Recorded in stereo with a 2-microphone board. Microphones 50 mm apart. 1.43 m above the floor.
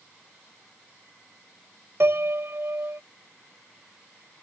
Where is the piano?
60° right (ahead or behind).